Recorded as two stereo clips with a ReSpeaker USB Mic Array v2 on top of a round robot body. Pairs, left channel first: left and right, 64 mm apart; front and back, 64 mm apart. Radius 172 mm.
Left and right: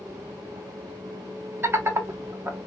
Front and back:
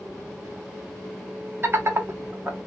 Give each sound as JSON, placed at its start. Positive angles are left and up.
{"t": 1.6, "sound": "laughter", "azimuth_deg": -135, "distance_m": 1.1}